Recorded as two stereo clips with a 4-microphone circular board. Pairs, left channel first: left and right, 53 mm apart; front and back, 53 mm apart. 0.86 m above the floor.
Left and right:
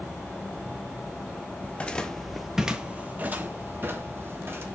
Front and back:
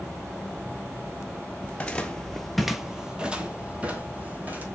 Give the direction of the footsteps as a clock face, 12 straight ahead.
10 o'clock.